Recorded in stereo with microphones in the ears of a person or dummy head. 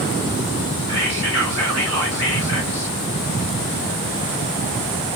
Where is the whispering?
75° right (ahead or behind), 1.6 m.